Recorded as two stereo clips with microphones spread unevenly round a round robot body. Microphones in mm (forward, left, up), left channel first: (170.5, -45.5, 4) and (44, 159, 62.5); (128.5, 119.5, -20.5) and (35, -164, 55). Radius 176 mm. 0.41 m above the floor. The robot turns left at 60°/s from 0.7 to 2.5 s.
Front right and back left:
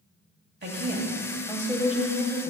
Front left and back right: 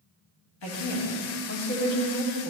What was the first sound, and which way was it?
A woman speaking, 80° left.